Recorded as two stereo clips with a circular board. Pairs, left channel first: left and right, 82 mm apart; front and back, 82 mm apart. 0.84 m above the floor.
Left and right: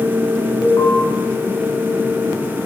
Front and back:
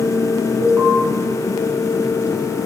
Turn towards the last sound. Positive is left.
turn(degrees=130)